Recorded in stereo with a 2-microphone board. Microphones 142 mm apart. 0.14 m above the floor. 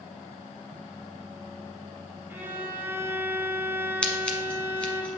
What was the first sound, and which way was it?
A violin, 15° right (ahead or behind).